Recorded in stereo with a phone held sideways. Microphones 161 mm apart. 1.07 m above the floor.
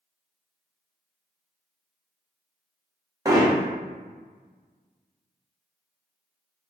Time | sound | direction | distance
3.2 | hammering | 20° right (ahead or behind) | 0.6 m